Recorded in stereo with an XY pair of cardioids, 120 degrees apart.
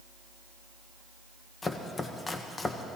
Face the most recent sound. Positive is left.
turn(degrees=25)